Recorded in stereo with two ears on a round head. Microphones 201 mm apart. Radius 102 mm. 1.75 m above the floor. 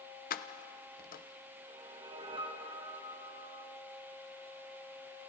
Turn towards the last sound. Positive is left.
turn(degrees=-25)  # may be behind; listen again after turning